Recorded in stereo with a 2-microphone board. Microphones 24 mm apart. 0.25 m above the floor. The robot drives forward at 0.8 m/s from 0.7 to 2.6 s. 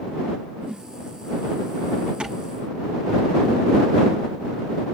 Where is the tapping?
50° right (ahead or behind), 7 m.